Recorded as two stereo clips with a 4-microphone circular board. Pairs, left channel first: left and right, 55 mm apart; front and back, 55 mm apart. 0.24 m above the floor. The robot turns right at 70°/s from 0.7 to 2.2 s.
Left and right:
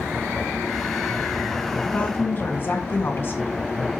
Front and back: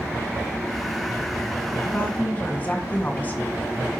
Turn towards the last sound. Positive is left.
turn(degrees=50)